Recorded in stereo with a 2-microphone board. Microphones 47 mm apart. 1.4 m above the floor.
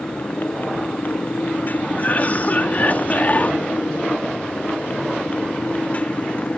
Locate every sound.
0.0 s a motorcycle: 45° left (ahead or behind); by 6.6 s 30° left (ahead or behind)
2.0 s a cough: 40° left (ahead or behind)